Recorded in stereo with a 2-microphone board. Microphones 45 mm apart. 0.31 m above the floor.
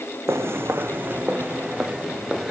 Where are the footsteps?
70° right (ahead or behind), 1.1 m; by 2.5 s 5° right (ahead or behind), 2 m.